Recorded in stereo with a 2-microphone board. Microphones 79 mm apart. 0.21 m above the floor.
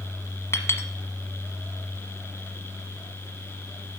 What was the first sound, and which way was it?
A clink, 40° left (ahead or behind).